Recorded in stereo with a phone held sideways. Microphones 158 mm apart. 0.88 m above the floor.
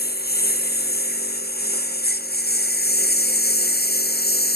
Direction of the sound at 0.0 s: 85° left.